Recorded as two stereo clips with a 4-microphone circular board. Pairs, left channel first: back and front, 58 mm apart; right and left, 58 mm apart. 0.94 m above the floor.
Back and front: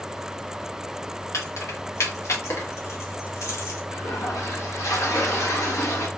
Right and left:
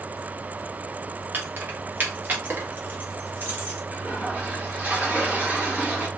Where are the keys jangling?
145° left, 0.8 m.